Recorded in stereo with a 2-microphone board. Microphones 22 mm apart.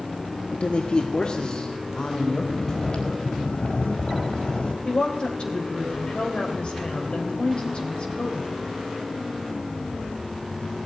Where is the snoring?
50° left (ahead or behind), 4.5 m.